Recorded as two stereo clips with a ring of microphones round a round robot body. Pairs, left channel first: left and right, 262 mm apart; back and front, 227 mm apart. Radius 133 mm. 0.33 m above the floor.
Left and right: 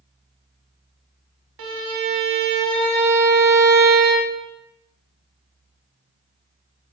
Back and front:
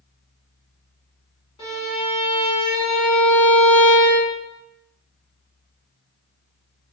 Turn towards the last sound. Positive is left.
turn(degrees=-105)